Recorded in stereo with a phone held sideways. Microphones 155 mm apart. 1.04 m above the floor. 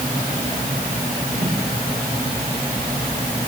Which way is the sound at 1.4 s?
35° right (ahead or behind).